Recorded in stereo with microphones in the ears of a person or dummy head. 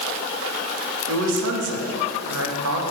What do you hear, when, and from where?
1.1 s a man speaking: 75° right (ahead or behind), 2.5 m